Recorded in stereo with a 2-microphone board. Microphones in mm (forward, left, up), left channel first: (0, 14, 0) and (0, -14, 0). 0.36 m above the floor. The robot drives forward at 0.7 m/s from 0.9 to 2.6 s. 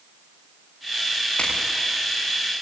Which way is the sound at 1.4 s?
50° left (ahead or behind).